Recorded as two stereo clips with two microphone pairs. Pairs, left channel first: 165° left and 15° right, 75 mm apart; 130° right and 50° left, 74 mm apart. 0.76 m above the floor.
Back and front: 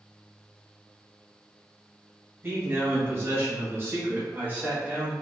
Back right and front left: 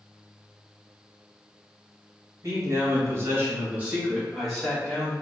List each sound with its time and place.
2.4 s a man speaking: 30° left, 1.4 m; by 5.1 s 75° right, 1.1 m